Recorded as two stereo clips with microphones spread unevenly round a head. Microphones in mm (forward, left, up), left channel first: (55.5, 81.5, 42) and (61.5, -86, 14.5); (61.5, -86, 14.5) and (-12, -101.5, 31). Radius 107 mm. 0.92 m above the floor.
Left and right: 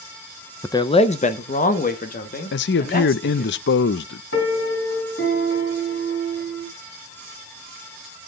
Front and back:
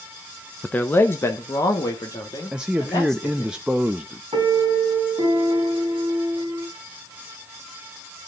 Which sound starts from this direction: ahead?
A man speaking, at 0.6 s.